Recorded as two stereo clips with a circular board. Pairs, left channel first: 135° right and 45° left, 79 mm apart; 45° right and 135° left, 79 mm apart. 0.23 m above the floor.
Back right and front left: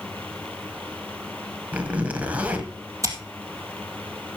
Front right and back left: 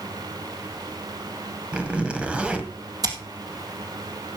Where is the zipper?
80° left, 1.6 m.